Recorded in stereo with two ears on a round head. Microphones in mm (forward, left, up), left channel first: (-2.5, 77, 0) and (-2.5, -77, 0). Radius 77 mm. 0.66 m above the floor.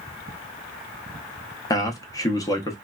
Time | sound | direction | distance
1.7 | a man speaking | 20° left (ahead or behind) | 0.6 m